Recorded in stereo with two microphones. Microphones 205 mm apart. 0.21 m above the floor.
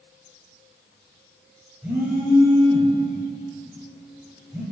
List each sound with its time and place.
1.8 s a phone buzzing: 10° right (ahead or behind), 3 m